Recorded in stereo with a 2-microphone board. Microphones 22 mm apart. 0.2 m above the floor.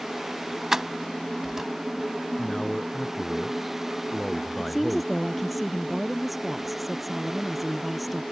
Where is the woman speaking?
Centre (ahead or behind).